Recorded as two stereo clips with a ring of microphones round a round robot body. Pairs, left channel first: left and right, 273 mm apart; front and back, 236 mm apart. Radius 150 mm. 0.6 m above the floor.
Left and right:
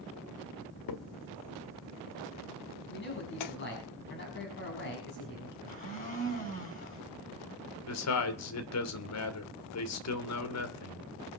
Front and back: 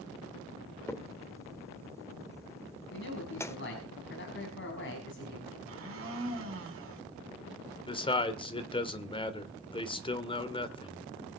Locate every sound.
0.9 s a crack: 80° left, 1.1 m
2.9 s a man speaking: 40° left, 5 m
5.7 s a blender: 150° left, 5.5 m
7.9 s a man speaking: 70° left, 2 m